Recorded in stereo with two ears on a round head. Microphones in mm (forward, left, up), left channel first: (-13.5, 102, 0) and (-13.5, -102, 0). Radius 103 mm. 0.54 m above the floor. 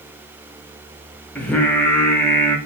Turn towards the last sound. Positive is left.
turn(degrees=5)  # may be behind; listen again after turning